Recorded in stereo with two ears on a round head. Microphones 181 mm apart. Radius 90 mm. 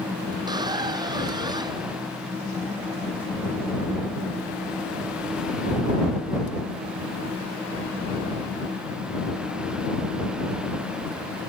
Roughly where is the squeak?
Right.